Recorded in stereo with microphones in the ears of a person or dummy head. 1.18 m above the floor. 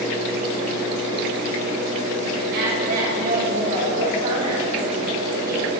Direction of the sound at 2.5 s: 50° right (ahead or behind).